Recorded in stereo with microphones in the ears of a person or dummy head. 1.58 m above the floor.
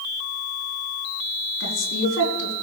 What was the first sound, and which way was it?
A woman speaking, 85° left.